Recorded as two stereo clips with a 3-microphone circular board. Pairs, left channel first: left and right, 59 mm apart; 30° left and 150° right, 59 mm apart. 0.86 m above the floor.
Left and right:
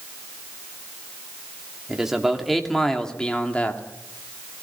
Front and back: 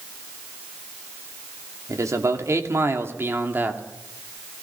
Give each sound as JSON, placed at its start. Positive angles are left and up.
{"t": 1.9, "sound": "a man speaking", "azimuth_deg": -170, "distance_m": 2.0}